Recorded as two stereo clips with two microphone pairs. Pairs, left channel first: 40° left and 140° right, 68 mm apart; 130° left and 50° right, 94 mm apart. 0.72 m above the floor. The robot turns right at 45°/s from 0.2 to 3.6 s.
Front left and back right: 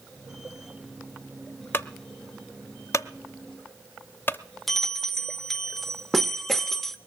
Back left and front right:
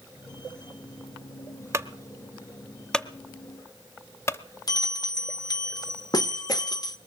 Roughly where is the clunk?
Ahead.